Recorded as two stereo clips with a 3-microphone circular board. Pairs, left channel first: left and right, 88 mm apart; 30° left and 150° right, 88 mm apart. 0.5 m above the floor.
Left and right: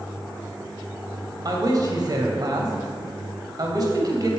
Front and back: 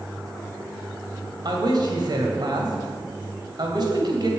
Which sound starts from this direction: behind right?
A man speaking, at 1.4 s.